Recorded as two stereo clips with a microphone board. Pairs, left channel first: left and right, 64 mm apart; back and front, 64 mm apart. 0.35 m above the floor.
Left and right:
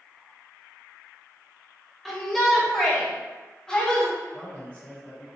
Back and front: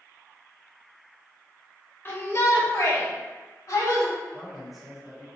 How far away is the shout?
About 1.1 m.